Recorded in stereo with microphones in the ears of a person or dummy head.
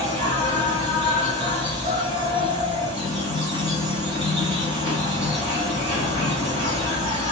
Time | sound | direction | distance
0.0 | an insect | 30° right (ahead or behind) | 1.4 m